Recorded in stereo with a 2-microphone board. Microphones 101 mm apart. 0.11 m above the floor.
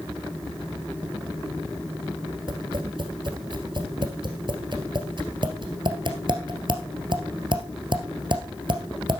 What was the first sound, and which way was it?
Tapping, 50° right (ahead or behind).